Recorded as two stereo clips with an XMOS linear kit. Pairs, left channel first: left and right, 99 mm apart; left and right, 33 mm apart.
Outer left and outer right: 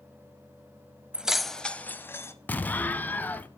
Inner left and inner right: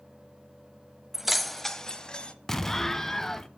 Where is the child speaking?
No child speaking in this recording.